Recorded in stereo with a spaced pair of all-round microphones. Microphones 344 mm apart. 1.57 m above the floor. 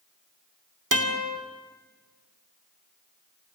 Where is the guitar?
70° right (ahead or behind), 2.5 m.